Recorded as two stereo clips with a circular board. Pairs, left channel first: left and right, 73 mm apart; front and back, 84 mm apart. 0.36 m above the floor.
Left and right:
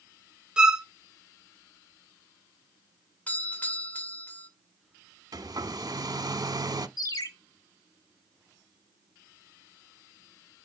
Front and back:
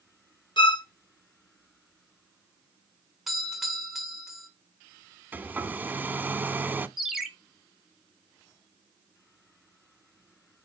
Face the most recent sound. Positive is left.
turn(degrees=95)